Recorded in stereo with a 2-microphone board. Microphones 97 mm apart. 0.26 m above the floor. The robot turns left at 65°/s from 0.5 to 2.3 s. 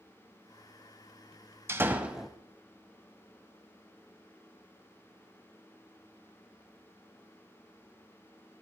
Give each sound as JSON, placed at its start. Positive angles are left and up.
{"t": 1.7, "sound": "a door slam", "azimuth_deg": -140, "distance_m": 1.1}